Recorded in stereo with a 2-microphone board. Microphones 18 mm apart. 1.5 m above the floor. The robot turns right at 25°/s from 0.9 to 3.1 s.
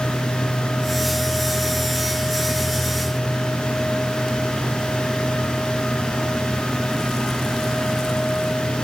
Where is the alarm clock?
No alarm clock in this recording.